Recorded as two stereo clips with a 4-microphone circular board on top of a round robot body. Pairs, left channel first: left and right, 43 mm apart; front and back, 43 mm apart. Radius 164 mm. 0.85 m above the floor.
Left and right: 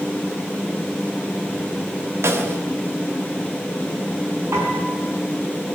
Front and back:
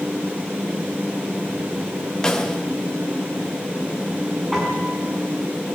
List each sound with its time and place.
2.2 s a snare drum: 75° right, 2 m
4.5 s a piano: 90° right, 5.5 m